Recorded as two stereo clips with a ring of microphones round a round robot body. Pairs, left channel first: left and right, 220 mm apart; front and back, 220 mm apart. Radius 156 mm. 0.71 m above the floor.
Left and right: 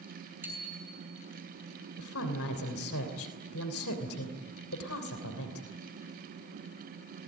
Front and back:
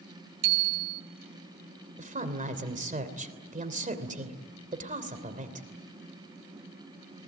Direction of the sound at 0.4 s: 175° right.